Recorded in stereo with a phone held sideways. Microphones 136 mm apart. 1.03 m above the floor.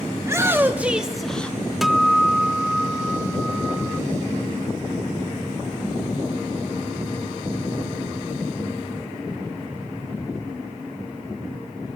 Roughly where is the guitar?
Centre.